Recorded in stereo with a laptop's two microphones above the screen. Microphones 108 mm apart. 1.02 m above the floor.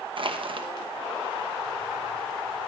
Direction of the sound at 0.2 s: 55° right (ahead or behind).